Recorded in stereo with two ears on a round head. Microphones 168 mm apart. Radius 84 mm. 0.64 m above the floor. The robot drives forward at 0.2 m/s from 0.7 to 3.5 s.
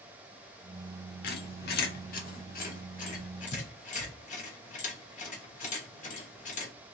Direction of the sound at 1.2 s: 55° left (ahead or behind).